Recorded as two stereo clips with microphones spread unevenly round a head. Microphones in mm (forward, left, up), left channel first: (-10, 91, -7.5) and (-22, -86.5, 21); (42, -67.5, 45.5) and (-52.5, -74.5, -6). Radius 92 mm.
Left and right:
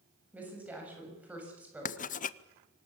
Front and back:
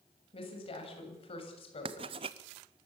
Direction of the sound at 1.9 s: 135° left.